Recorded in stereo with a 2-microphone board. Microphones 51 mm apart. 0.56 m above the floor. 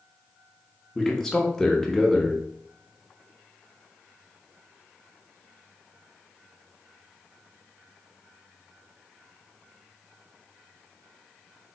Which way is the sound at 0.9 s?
10° left (ahead or behind).